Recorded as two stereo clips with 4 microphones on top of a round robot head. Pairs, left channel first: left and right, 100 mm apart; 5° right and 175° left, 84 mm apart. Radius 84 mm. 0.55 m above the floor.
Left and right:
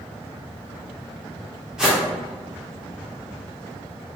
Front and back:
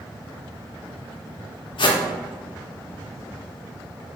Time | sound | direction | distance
1.8 | a whoosh | 5° right | 0.6 m